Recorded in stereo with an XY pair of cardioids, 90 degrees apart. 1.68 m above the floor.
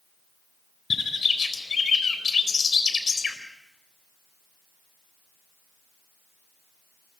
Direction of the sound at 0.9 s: 45° left.